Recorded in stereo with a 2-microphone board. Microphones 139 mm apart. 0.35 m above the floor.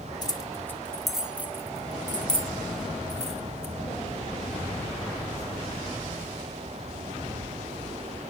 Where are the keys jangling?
30° left (ahead or behind), 1.1 m; by 3.7 s 55° right (ahead or behind), 1.9 m.